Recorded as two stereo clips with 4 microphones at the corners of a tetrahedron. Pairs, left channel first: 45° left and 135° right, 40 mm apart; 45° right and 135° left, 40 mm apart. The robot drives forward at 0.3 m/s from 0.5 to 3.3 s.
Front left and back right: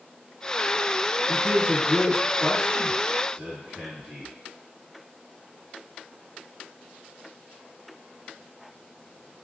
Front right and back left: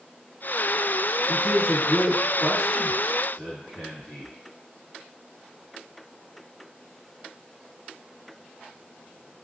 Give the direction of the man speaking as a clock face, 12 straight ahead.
3 o'clock.